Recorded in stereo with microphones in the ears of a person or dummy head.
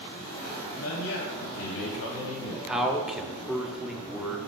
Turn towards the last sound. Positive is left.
turn(degrees=-5)  # may be behind; listen again after turning